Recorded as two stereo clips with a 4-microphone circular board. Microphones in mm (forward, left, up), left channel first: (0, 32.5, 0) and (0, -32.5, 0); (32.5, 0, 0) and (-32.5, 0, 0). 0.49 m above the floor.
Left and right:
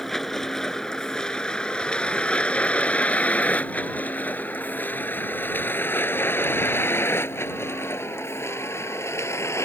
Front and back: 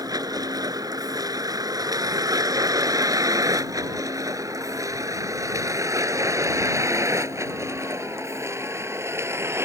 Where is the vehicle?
175° left; by 9.7 s 135° left.